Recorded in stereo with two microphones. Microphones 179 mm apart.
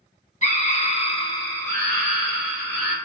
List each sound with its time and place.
0.4 s a scream: 40° left (ahead or behind), 0.8 m; by 2.9 s 15° right (ahead or behind), 1.1 m